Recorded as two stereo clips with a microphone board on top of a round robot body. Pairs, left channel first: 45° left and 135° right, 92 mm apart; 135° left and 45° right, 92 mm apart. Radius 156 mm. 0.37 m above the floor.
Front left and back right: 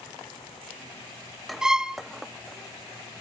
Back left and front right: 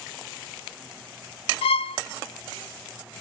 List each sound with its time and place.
1.6 s a violin: 140° left, 0.5 m